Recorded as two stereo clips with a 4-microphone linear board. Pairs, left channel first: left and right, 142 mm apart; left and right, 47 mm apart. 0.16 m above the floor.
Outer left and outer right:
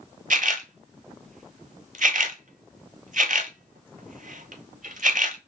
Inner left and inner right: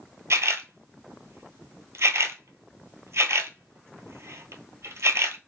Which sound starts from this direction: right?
A camera shutter, at 0.3 s.